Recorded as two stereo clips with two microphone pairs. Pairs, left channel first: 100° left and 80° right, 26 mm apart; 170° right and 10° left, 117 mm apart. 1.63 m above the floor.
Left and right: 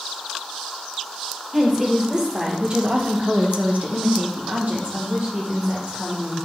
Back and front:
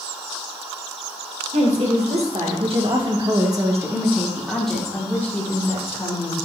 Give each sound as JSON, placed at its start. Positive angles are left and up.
{"t": 1.5, "sound": "a woman speaking", "azimuth_deg": -5, "distance_m": 2.0}